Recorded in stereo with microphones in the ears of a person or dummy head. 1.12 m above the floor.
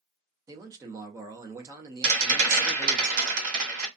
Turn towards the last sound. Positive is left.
turn(degrees=-50)  # may be behind; listen again after turning